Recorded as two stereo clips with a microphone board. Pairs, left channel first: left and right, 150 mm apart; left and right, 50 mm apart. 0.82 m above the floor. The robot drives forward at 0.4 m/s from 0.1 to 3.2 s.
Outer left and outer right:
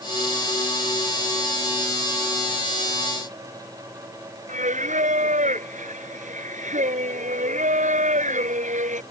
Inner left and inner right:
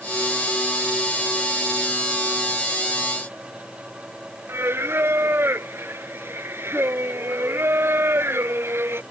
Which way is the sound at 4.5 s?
55° right (ahead or behind).